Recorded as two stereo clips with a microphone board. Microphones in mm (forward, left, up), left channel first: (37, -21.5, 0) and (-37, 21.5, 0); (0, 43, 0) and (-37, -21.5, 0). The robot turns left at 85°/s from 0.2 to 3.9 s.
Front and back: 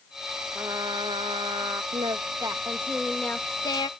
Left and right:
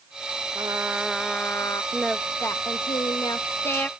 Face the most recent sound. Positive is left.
turn(degrees=-10)